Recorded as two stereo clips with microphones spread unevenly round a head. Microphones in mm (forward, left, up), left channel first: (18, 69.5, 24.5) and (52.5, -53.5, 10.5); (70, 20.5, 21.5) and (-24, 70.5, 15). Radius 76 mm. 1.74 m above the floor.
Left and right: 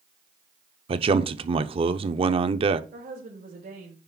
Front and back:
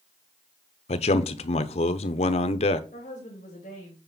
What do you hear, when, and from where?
0.9 s a man speaking: 30° right, 0.7 m
2.9 s a woman speaking: 65° right, 3 m